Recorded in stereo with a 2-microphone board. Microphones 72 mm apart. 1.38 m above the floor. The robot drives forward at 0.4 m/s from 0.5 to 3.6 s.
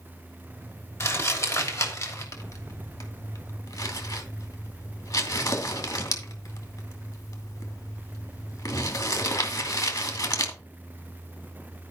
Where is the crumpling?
45° left (ahead or behind), 3 m; by 10.5 s 60° left (ahead or behind), 2.5 m.